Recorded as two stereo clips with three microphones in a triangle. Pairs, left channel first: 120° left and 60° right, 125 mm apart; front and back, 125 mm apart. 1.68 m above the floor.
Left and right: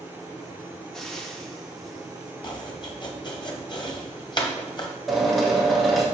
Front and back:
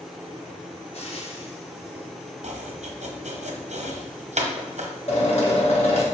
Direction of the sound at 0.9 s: 35° left.